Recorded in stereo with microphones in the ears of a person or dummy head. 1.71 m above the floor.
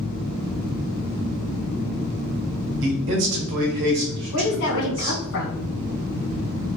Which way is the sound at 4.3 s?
70° left (ahead or behind).